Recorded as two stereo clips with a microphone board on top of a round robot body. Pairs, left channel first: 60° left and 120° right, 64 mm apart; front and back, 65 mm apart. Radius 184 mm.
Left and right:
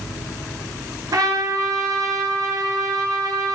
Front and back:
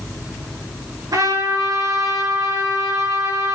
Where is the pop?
No pop in this recording.